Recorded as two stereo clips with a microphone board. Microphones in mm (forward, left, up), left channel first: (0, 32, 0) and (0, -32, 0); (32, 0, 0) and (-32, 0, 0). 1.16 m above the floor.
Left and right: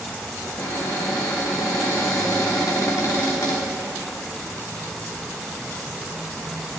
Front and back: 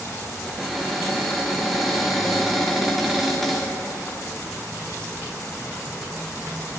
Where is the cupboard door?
90° left, 2.5 m.